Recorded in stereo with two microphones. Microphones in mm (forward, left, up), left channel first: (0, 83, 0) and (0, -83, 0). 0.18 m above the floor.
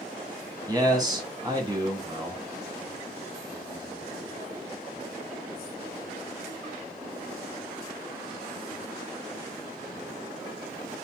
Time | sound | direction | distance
0.7 | a man speaking | 25° right (ahead or behind) | 1.2 m